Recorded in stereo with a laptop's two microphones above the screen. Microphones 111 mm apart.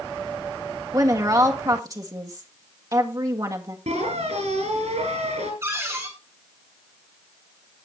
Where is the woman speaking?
35° right (ahead or behind), 1.5 m.